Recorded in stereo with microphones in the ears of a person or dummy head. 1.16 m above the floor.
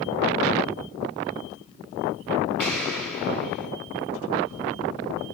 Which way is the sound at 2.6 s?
5° left (ahead or behind).